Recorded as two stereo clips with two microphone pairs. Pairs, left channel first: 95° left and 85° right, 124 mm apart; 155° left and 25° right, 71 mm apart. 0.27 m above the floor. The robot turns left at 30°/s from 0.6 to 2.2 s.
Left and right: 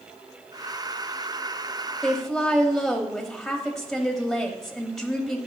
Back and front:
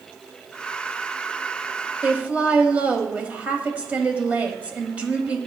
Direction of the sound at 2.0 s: 15° left.